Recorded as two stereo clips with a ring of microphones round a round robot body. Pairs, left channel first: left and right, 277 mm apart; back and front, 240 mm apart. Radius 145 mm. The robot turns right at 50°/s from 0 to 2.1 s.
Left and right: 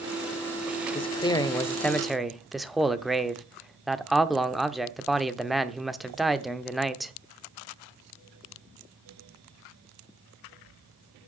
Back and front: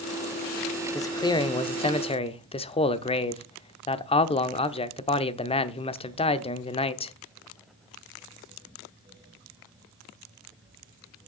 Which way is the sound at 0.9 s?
125° left.